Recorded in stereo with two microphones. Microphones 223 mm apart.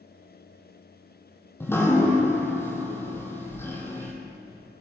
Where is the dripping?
10° left (ahead or behind), 1.4 m.